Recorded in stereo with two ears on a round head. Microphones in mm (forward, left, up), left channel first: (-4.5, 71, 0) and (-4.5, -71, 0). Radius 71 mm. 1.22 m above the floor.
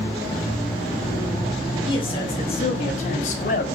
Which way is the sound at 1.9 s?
30° left (ahead or behind).